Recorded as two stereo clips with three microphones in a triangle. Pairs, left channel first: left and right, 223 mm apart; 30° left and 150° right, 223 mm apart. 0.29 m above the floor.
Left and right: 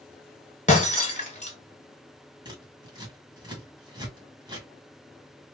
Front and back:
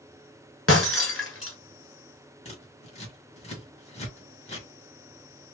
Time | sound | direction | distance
0.7 | breaking glass | 35° left | 1.2 m
2.5 | scissors | 25° right | 1.9 m